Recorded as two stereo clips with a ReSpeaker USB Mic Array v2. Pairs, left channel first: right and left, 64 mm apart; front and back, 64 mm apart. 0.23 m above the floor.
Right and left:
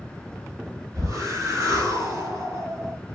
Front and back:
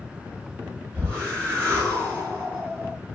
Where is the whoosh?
120° left, 5.5 m.